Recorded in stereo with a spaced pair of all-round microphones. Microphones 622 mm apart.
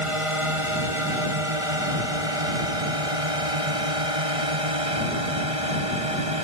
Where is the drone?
55° right (ahead or behind); by 6.5 s 60° right (ahead or behind).